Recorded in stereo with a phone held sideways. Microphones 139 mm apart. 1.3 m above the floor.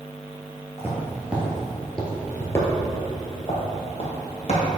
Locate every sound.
0.8 s footsteps: 20° right (ahead or behind), 1.7 m; by 4.6 s 50° left (ahead or behind), 2.5 m